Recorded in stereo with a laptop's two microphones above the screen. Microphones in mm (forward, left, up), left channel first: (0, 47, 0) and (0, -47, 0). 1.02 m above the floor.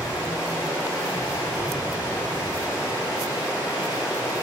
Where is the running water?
30° left (ahead or behind), 3.5 m.